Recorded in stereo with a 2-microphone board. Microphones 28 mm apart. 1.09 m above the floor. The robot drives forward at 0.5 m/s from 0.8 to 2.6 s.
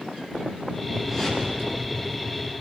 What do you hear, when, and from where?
1.1 s a whoosh: 15° right (ahead or behind), 9.5 m